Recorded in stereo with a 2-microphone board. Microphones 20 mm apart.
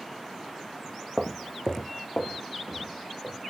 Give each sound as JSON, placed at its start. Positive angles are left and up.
{"t": 1.2, "sound": "footsteps", "side_deg": -5, "distance_m": 0.7}